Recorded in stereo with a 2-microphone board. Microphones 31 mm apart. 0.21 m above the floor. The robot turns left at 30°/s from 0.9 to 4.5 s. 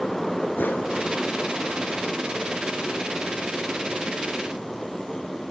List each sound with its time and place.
0.6 s a whoosh: 70° left (ahead or behind), 1.8 m